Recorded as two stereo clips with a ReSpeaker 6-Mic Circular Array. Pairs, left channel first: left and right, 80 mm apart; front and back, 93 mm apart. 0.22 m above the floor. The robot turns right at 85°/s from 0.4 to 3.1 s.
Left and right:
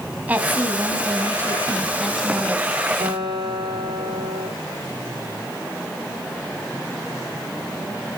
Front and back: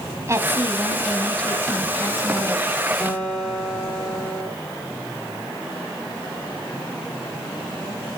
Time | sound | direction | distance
0.3 | a woman speaking | 145° right | 1.2 m
3.0 | a guitar | 85° right | 3 m